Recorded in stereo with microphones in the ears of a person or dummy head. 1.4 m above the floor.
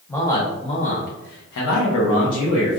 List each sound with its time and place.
0.1 s a man speaking: 10° left (ahead or behind), 1.0 m; by 2.8 s 65° left (ahead or behind), 1.2 m